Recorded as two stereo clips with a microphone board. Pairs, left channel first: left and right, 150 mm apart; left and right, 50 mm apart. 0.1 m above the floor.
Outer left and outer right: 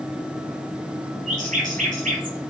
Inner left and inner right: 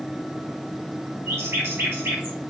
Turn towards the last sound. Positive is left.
turn(degrees=-60)  # may be behind; listen again after turning